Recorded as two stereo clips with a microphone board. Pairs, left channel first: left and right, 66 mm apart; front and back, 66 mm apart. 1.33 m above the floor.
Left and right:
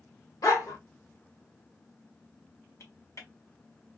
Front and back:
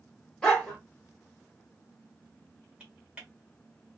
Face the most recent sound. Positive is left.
turn(degrees=110)